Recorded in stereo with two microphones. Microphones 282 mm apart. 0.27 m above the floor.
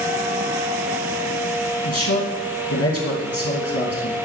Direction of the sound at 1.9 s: 55° left (ahead or behind).